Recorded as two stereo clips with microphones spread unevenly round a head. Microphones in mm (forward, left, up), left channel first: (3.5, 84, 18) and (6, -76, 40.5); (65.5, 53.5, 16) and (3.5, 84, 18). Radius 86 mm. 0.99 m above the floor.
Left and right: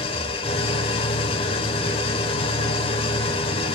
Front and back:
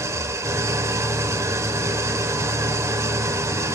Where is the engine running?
145° left, 0.8 m.